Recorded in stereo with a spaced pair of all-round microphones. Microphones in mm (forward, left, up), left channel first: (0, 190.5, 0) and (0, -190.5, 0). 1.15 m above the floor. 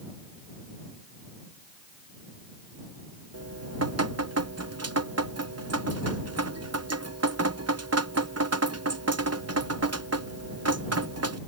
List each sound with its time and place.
3.3 s dripping: 40° right (ahead or behind)